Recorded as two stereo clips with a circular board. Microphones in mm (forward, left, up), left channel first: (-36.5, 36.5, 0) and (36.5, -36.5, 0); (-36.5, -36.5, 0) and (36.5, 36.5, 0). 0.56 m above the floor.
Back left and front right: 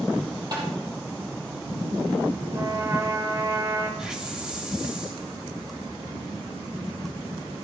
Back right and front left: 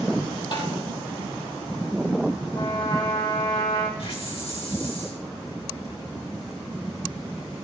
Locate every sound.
0.5 s tapping: 95° right, 5 m
2.5 s a trumpet: 100° right, 2.5 m
4.0 s a hiss: 125° right, 3 m